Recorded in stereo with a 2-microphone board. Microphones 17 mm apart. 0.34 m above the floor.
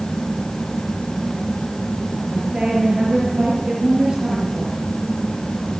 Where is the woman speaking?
55° right (ahead or behind), 5.5 m.